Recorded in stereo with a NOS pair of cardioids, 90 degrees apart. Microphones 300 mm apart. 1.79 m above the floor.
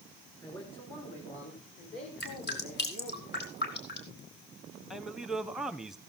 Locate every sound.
0.4 s a man speaking: 15° left, 6.5 m; by 3.2 s 60° left, 4.5 m
2.2 s dripping: 35° left, 5 m
4.9 s a man speaking: straight ahead, 1.4 m